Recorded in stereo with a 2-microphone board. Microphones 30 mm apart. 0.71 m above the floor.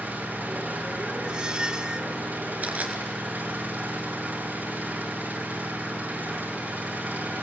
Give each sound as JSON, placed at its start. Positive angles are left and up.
{"t": 0.0, "sound": "an engine running", "side_deg": -85, "distance_m": 6.5}
{"t": 1.2, "sound": "a squeak", "side_deg": -30, "distance_m": 0.6}
{"t": 2.6, "sound": "crushing", "side_deg": -65, "distance_m": 2.5}